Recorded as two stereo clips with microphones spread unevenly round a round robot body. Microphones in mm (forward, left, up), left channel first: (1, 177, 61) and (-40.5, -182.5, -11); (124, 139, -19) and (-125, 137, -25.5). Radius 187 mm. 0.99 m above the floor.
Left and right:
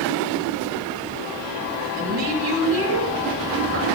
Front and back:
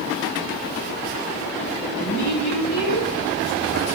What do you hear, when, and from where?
2.0 s a woman speaking: 40° right, 4.5 m